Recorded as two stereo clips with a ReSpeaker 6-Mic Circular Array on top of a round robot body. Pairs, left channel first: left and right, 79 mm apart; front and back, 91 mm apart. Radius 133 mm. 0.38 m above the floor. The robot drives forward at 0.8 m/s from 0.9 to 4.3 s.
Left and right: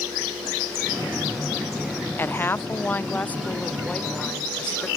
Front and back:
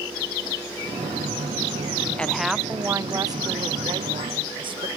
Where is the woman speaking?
65° left; by 4.9 s 165° left.